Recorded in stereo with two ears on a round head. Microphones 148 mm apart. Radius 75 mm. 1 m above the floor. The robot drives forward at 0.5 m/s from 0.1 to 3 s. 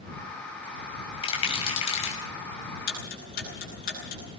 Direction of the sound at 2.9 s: 55° left (ahead or behind).